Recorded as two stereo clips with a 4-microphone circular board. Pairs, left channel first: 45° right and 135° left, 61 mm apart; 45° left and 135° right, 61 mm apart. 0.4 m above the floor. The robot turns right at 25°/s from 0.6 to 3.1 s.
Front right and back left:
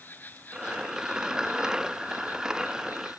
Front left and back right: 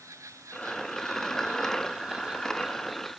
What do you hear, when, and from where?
0.0 s an insect: 105° right; by 3.2 s 40° right